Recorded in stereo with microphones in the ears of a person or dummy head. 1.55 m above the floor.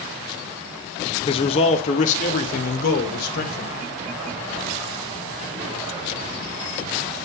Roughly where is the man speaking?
Left.